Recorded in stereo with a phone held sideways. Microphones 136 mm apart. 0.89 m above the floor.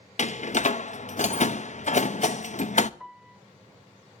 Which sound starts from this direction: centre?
A piano, at 3.0 s.